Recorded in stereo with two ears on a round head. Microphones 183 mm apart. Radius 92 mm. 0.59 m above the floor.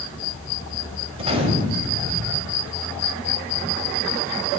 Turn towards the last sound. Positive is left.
turn(degrees=-25)  # may be behind; listen again after turning